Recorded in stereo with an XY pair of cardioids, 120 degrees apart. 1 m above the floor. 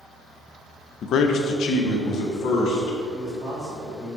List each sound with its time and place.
1.0 s a man speaking: 55° left, 0.5 m; by 3.0 s 70° left, 2.0 m
3.1 s a man speaking: 10° right, 1.7 m